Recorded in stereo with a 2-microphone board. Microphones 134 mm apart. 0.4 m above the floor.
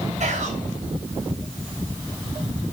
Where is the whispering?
60° right (ahead or behind), 5.5 m.